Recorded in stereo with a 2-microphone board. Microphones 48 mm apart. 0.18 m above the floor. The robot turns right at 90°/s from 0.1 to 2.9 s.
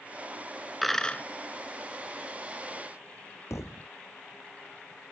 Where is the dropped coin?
Straight ahead; by 1.2 s 40° left.